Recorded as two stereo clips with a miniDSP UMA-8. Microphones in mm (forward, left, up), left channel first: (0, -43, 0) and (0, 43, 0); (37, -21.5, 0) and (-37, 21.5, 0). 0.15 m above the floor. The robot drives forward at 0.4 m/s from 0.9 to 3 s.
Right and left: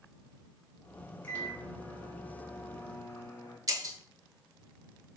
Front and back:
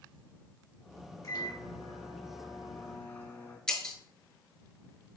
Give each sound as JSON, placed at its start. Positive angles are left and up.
{"t": 1.2, "sound": "a microwave", "azimuth_deg": -30, "distance_m": 1.3}
{"t": 3.7, "sound": "breaking glass", "azimuth_deg": 50, "distance_m": 0.7}